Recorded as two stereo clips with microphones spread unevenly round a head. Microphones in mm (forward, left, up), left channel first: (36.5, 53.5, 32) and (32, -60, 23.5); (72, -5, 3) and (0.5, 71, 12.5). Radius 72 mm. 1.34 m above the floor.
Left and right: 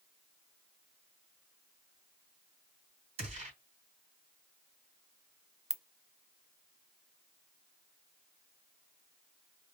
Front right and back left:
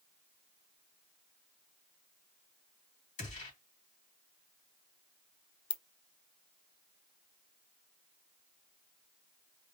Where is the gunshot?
60° right, 3.5 m.